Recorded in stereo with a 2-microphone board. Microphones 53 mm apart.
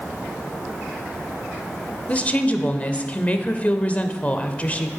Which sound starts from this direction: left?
A woman speaking, at 2.1 s.